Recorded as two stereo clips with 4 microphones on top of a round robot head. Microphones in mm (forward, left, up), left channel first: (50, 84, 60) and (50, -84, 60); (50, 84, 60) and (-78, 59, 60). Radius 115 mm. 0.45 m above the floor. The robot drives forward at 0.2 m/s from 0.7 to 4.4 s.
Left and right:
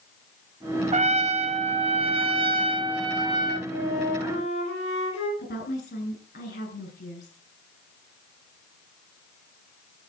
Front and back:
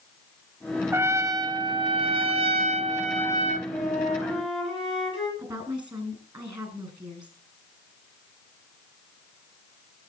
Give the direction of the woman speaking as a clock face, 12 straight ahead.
7 o'clock.